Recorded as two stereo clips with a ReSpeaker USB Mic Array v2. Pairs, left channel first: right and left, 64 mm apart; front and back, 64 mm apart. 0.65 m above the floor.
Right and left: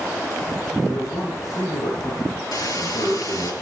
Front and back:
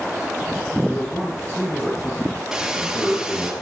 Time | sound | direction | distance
0.9 | a man speaking | 60° right | 8.5 m
2.5 | a hiss | 100° right | 4 m